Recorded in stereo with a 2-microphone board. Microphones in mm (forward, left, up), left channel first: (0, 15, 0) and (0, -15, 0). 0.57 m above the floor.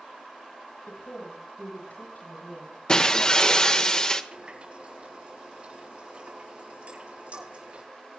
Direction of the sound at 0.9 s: 85° left.